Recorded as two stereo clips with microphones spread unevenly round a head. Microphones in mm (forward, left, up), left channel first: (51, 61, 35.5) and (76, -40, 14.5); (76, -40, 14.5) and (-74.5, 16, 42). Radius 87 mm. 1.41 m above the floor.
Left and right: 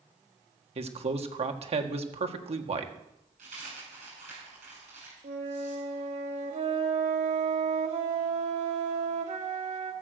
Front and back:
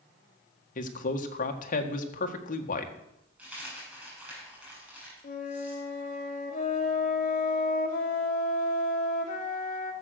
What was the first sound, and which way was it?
A man speaking, 55° right.